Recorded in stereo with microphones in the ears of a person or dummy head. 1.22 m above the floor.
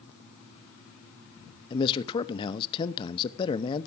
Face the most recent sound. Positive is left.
turn(degrees=35)  # may be behind; listen again after turning